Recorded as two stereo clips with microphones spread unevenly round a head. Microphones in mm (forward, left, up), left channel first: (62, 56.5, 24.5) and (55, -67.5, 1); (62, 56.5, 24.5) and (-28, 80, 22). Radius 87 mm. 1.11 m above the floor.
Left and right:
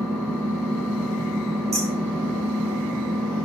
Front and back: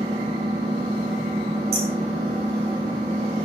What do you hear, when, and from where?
0.0 s an engine running: 165° left, 2.5 m
1.7 s hammering: 170° right, 5.5 m